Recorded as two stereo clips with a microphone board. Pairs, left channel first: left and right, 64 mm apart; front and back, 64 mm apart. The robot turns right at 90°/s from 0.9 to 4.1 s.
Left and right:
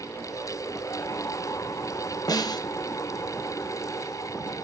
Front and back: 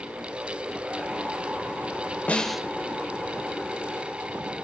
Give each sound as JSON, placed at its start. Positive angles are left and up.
{"t": 2.3, "sound": "a snare drum", "azimuth_deg": 65, "distance_m": 0.5}